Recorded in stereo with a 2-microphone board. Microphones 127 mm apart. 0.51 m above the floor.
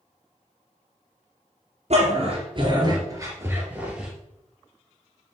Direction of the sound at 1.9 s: 55° right (ahead or behind).